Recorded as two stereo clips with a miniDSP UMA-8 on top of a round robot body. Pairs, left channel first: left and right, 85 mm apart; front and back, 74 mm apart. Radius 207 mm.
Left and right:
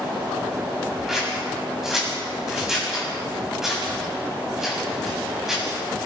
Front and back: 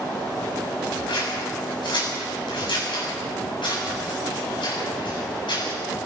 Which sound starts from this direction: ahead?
Scissors, at 1.1 s.